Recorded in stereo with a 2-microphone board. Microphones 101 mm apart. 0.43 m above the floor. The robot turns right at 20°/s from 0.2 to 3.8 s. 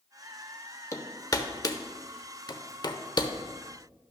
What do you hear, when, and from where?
0.9 s hammering: 30° left (ahead or behind), 0.9 m; by 3.3 s 45° left (ahead or behind), 0.9 m